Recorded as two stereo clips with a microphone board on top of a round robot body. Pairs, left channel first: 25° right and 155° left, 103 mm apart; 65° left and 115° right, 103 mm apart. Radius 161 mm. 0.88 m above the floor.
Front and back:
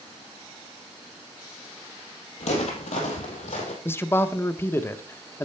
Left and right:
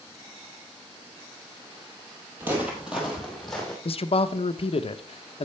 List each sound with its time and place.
2.4 s footsteps: 40° right, 1.6 m; by 3.8 s 15° right, 2 m
3.9 s a man speaking: 45° left, 0.8 m